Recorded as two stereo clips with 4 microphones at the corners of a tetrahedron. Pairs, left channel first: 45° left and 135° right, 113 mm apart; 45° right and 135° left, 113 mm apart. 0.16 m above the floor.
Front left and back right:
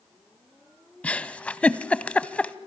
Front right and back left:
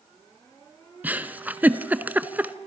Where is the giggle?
100° left, 0.6 m.